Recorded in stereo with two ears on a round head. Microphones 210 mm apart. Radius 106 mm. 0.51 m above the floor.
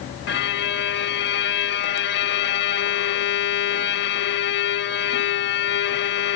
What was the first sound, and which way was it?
A violin, 45° left (ahead or behind).